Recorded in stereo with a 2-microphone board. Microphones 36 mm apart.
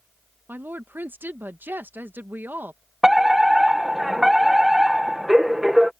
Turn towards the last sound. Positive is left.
turn(degrees=-10)  # may be behind; listen again after turning